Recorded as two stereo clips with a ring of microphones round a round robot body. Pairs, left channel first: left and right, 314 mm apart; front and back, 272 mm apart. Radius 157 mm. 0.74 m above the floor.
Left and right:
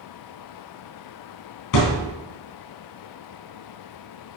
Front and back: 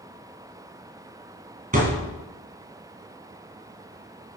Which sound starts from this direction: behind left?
A thud, at 1.7 s.